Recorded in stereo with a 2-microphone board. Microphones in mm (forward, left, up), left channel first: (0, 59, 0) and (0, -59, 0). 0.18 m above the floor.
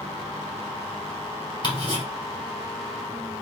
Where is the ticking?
40° left (ahead or behind), 2.5 m.